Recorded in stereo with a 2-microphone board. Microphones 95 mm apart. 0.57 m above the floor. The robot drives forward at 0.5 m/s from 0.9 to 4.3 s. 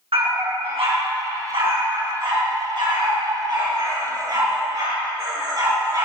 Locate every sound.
0.1 s a dog barking: 75° right (ahead or behind), 2.5 m; by 6.0 s 45° right (ahead or behind), 3 m